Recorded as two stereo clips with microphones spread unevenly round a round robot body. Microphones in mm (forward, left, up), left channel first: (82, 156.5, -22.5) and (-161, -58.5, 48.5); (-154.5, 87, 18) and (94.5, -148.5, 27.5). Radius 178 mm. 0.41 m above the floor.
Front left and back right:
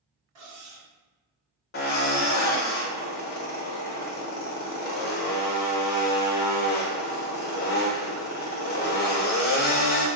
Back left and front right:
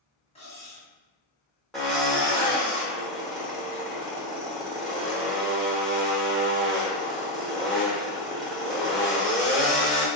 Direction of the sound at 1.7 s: 50° left.